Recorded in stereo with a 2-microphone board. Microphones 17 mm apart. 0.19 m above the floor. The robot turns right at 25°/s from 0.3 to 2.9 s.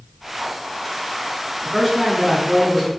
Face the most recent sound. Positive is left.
turn(degrees=-20)